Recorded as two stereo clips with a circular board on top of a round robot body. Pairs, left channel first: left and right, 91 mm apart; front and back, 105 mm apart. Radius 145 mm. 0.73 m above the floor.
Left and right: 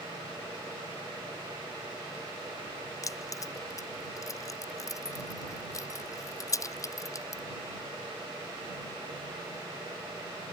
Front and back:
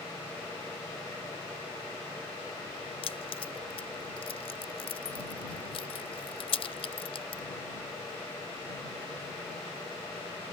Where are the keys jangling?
35° left.